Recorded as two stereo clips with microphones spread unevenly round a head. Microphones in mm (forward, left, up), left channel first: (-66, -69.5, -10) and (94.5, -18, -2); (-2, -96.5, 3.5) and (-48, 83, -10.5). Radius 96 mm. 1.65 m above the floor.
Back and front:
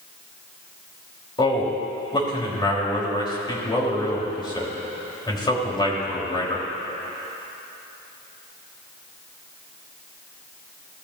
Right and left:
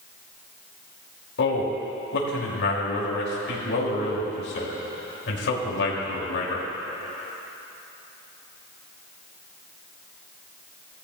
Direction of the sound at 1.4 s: 100° right.